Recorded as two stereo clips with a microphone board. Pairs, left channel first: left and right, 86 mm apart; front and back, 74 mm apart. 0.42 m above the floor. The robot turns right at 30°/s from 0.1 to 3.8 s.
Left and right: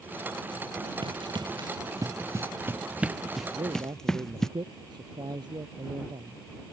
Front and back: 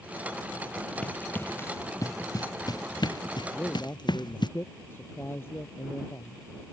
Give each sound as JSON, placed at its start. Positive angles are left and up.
{"t": 1.0, "sound": "running footsteps", "azimuth_deg": -75}
{"t": 3.5, "sound": "a man speaking", "azimuth_deg": -70}